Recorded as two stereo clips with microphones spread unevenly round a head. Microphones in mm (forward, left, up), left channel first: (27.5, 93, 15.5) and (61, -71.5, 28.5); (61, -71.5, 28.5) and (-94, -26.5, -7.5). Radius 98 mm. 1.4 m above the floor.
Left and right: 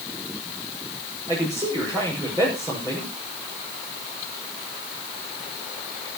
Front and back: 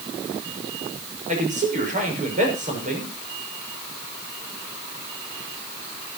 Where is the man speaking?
155° right, 6 m.